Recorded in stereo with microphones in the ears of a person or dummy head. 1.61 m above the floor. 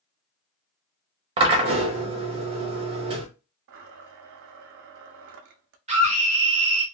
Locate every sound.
1.4 s a drill: 30° right (ahead or behind), 0.8 m
3.7 s a blender: 65° right (ahead or behind), 0.5 m
5.9 s a scream: 30° right (ahead or behind), 0.9 m